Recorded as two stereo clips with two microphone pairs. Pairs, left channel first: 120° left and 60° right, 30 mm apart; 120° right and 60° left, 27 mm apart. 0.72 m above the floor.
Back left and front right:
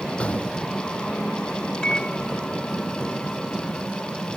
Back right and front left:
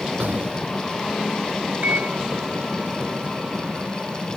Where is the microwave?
60° left.